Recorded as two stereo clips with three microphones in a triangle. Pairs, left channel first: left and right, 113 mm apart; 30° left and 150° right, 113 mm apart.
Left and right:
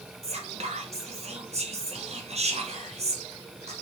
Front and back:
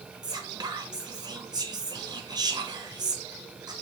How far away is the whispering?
About 0.6 m.